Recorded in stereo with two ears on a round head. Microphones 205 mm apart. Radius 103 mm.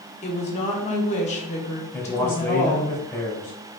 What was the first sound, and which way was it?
A woman speaking, 30° left (ahead or behind).